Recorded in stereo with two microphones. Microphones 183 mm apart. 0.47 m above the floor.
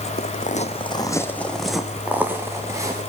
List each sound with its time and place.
0.2 s footsteps: 55° left (ahead or behind), 1.3 m; by 3.0 s 20° right (ahead or behind), 3 m